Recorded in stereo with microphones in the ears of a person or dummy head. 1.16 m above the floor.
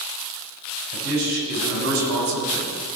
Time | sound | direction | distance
0.9 | a man speaking | 70° right (ahead or behind) | 5 m